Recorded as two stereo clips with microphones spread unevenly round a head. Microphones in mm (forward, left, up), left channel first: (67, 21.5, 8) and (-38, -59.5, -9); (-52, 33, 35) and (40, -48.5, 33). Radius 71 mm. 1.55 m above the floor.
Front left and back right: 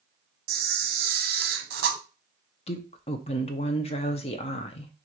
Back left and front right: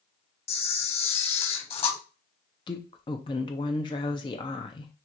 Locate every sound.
0.5 s a camera shutter: 175° right, 0.8 m
2.7 s a woman speaking: 80° left, 0.7 m